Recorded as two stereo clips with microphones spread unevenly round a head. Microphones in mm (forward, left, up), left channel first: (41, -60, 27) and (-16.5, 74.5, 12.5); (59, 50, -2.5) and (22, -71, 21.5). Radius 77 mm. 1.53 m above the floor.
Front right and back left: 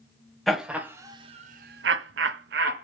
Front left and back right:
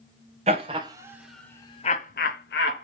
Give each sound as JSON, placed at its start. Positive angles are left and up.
{"t": 0.5, "sound": "laughter", "azimuth_deg": -155, "distance_m": 0.8}